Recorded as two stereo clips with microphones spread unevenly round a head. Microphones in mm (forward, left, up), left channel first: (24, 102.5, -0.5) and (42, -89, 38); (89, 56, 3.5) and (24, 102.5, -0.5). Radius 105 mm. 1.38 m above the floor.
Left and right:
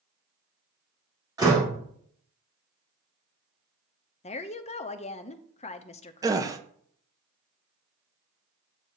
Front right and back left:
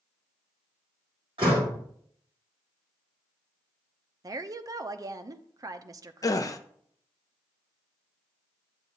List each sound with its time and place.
1.4 s a door slam: 160° right, 2.5 m
4.2 s a woman speaking: 130° left, 0.6 m
6.2 s a gasp: 30° right, 0.6 m